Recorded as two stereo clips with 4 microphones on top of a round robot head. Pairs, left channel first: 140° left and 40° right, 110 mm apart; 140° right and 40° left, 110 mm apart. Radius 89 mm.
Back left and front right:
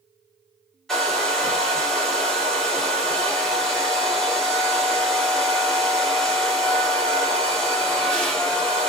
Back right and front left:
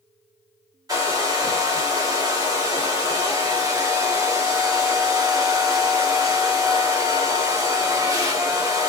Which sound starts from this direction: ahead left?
A hair dryer, at 0.9 s.